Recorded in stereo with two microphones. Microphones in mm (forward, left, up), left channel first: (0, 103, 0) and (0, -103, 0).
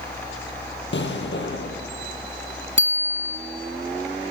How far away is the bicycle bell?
About 2.5 m.